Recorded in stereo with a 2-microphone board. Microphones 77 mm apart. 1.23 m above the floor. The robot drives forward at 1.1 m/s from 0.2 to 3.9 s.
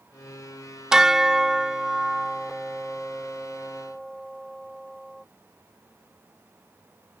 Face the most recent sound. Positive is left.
turn(degrees=0)  # may be behind; listen again after turning